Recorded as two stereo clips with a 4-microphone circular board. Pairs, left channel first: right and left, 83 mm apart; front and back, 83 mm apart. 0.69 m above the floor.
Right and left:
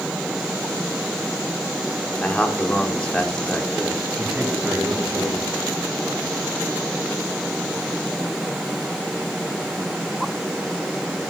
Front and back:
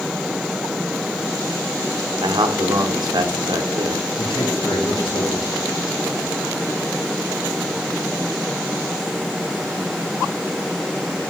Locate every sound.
2.2 s a man speaking: 165° right, 1.5 m
4.2 s a man speaking: 15° left, 5 m